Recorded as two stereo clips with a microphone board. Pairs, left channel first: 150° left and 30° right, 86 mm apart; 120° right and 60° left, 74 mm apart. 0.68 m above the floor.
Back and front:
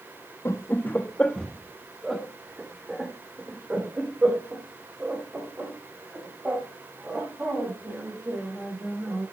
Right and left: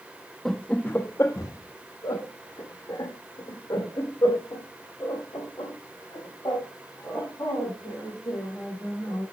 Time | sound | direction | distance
0.5 | laughter | 160° left | 0.7 m